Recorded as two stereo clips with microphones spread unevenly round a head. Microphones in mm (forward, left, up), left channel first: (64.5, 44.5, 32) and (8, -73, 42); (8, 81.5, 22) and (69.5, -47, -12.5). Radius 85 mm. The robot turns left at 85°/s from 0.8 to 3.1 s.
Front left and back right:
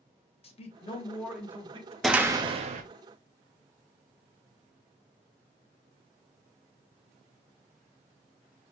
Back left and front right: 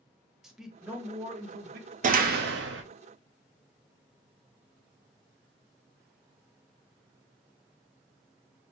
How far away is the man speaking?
About 0.9 m.